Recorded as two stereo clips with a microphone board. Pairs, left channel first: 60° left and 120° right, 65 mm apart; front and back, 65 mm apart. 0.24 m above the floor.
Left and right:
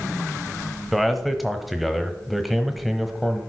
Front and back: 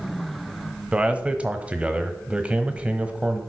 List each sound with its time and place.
0.9 s a man speaking: 155° left, 1.1 m